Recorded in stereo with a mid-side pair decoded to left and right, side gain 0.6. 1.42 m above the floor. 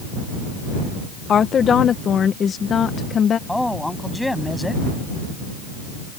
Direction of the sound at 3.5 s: 5° left.